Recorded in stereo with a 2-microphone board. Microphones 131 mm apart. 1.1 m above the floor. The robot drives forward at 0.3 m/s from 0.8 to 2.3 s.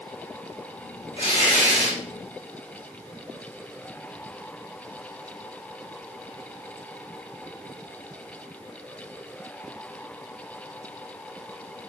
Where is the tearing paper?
45° left (ahead or behind), 1.5 m; by 2.0 s 40° left (ahead or behind), 1.6 m.